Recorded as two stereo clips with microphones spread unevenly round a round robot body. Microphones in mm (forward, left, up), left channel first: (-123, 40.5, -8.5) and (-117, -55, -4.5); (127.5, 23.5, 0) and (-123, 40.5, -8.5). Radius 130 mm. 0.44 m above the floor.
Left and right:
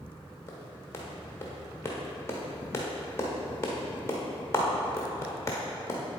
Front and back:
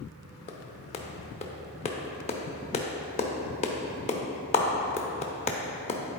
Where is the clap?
50° left, 0.8 m.